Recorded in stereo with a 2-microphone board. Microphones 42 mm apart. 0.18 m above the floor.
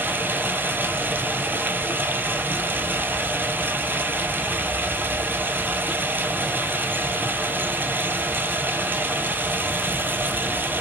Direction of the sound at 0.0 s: 55° right (ahead or behind).